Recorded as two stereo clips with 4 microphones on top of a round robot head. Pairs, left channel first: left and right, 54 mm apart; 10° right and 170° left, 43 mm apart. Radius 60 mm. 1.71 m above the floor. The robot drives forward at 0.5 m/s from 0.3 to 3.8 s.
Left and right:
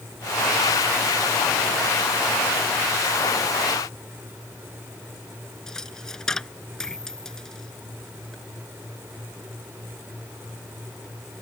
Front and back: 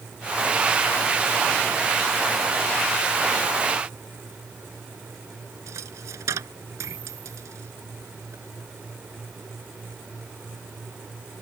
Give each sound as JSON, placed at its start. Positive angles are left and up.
{"t": 5.7, "sound": "a dropped coin", "azimuth_deg": 170}